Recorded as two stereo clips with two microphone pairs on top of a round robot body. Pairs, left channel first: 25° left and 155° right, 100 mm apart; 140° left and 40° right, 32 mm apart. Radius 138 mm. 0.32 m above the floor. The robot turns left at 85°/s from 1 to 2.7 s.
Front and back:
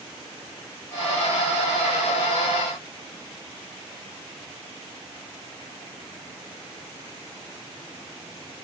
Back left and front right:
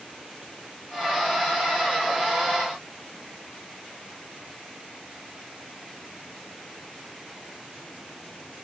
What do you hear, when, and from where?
Only background noise.